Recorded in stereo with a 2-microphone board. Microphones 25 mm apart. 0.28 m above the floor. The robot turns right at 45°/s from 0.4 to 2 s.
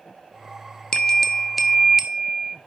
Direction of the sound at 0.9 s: 150° left.